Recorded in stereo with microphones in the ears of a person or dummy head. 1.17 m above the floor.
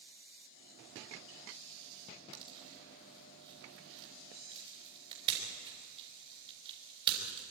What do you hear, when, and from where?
2.3 s a pop: 30° right (ahead or behind), 4.5 m